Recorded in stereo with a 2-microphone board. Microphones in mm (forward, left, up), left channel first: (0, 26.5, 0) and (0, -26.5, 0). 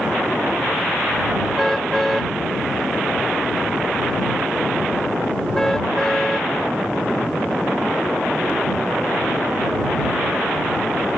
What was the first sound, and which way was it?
A car horn, 5° left (ahead or behind).